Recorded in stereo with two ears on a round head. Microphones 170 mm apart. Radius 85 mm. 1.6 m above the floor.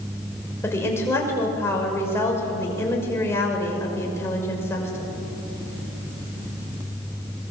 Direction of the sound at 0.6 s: 15° left (ahead or behind).